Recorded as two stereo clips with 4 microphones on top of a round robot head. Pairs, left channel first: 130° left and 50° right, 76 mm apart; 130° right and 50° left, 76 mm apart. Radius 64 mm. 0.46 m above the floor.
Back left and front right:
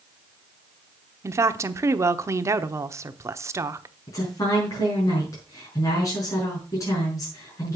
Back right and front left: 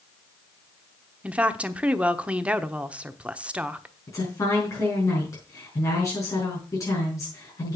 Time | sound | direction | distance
1.2 | a woman speaking | 20° right | 1.0 m
4.1 | a woman speaking | straight behind | 5.5 m